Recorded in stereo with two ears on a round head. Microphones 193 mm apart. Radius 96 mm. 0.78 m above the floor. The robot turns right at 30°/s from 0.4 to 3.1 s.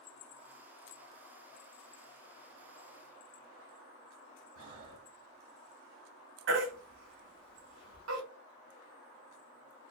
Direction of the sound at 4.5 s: 65° right (ahead or behind).